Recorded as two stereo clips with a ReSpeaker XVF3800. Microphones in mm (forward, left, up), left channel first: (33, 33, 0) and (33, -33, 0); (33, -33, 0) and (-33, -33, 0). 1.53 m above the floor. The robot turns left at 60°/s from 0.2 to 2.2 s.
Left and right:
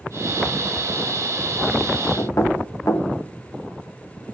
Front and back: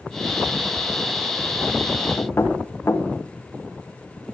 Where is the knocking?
55° left, 1.4 m.